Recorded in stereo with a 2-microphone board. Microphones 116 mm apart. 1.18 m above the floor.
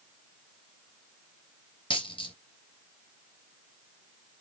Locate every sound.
1.9 s a dropped coin: 45° left (ahead or behind), 2.5 m